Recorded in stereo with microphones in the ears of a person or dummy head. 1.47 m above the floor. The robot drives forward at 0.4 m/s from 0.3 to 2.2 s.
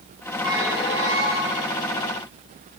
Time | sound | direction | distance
0.4 | a squeak | 20° right (ahead or behind) | 1.6 m